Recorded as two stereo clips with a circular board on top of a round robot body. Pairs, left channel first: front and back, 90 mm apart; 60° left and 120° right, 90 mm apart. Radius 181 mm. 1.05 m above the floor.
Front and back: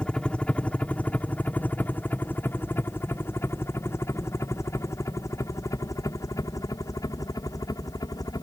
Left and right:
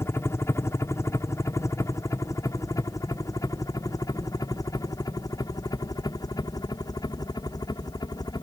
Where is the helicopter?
70° left; by 8.4 s 35° left.